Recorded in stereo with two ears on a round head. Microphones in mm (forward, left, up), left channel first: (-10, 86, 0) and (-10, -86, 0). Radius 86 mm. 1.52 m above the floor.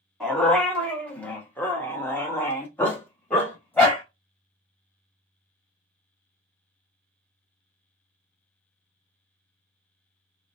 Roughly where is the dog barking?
Centre.